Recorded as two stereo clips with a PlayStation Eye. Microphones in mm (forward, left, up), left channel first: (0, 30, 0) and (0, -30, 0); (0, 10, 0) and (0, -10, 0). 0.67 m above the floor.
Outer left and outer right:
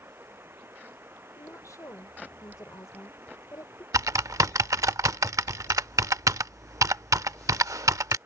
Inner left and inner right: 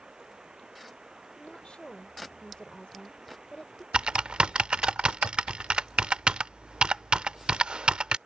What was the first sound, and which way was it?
Running water, 40° right (ahead or behind).